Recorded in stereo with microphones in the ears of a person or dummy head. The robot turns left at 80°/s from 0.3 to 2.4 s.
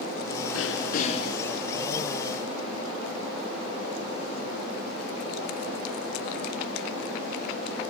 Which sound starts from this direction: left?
Throat clearing, at 0.5 s.